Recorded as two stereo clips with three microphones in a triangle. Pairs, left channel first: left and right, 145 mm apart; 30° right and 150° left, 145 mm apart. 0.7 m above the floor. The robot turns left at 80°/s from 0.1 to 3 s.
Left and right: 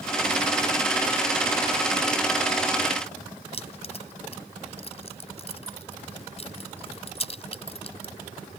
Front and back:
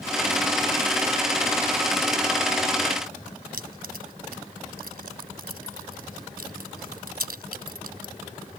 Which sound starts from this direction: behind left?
Keys jangling, at 3.5 s.